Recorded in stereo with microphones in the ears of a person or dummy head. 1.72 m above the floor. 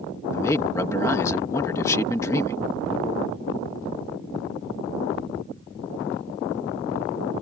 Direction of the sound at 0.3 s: 15° left (ahead or behind).